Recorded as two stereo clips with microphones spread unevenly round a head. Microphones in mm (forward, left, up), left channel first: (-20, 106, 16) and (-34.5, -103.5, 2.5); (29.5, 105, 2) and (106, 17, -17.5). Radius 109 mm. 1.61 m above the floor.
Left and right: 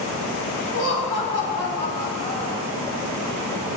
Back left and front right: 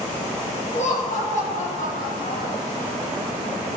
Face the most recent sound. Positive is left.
turn(degrees=135)